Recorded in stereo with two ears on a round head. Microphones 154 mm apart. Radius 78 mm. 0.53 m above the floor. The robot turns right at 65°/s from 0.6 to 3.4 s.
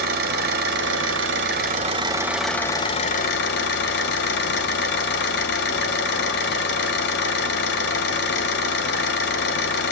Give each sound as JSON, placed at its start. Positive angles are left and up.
{"t": 0.0, "sound": "an engine running", "azimuth_deg": -120, "distance_m": 1.8}